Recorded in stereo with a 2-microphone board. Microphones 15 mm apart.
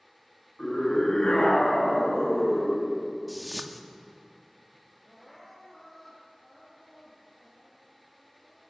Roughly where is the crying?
Centre.